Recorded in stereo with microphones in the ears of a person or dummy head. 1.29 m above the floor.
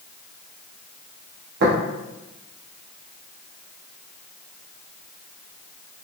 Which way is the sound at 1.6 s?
65° right (ahead or behind).